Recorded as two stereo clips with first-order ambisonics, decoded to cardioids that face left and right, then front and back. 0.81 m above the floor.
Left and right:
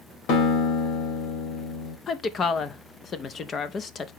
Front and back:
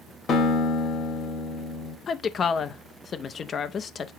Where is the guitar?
65° left, 2.5 m.